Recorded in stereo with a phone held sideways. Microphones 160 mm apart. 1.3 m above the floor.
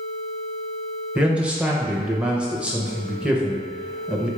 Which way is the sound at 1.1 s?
5° right (ahead or behind).